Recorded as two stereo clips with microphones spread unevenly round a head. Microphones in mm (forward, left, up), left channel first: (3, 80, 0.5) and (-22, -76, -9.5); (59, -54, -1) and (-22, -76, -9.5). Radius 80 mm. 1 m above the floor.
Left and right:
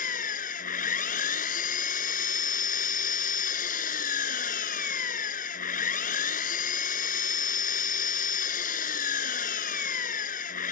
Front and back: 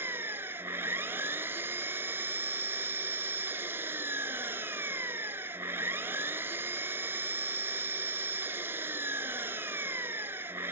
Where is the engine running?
115° left.